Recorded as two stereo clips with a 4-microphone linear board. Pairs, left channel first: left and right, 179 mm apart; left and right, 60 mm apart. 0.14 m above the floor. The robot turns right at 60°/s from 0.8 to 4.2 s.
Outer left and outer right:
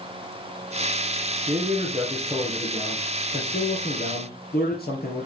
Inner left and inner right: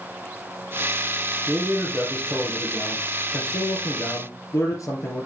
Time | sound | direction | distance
1.5 | a man speaking | 70° right | 3 m